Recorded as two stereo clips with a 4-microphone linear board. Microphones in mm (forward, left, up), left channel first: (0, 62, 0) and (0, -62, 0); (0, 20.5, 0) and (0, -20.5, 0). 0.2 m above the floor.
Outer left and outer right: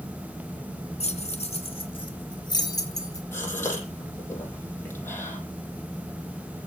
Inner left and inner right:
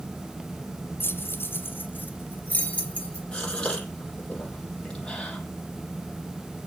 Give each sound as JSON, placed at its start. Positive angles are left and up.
{"t": 1.0, "sound": "keys jangling", "side_deg": 60, "distance_m": 1.7}
{"t": 3.3, "sound": "a gasp", "side_deg": 15, "distance_m": 6.0}